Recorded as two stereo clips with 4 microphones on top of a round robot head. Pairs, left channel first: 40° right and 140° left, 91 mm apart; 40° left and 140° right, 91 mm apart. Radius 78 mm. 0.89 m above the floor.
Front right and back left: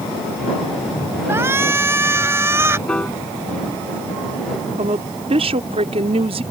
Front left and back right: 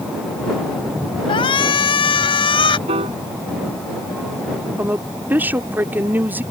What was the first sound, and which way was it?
A shout, 75° left.